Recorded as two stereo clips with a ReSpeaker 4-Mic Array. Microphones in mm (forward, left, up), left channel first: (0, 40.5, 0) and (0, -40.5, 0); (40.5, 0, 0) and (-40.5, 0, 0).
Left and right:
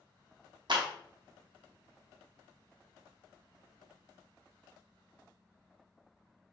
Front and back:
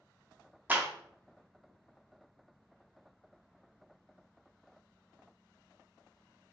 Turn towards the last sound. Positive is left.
turn(degrees=-115)